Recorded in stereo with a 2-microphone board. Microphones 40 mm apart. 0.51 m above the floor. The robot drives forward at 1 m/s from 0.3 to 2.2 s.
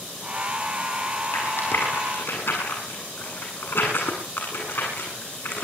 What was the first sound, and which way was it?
A rattle, 70° left (ahead or behind).